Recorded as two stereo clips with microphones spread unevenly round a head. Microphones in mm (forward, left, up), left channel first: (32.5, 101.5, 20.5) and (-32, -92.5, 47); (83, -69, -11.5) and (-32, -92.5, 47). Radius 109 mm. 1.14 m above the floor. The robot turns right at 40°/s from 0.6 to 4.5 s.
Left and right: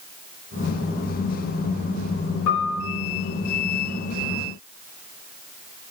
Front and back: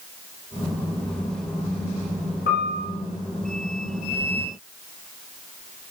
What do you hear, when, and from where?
2.5 s a piano: 50° left, 3.5 m; by 2.9 s 65° left, 3.5 m